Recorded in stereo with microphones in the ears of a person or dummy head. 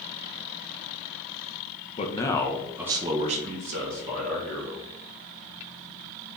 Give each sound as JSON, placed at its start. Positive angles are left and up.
{"t": 2.0, "sound": "a man speaking", "side_deg": 30, "distance_m": 0.6}